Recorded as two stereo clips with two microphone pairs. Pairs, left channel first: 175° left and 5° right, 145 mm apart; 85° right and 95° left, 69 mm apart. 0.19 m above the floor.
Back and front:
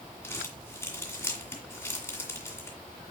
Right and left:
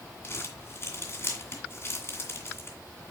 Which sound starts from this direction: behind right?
Crumpling, at 0.2 s.